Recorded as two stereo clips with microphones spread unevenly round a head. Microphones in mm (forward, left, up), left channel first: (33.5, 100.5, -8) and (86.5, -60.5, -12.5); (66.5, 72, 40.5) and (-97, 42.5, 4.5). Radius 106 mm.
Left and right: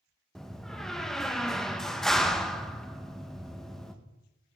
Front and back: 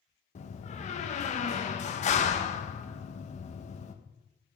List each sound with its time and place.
0.3 s a door slam: 20° left, 1.1 m